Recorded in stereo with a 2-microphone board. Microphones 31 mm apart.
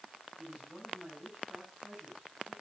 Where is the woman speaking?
35° right (ahead or behind), 8.5 m.